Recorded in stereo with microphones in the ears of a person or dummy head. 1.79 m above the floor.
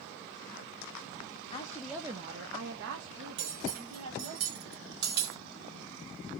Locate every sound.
1.5 s a woman speaking: 25° left (ahead or behind), 0.6 m; by 4.4 s 80° right, 1.8 m
3.4 s cutlery clinking: 65° right (ahead or behind), 2 m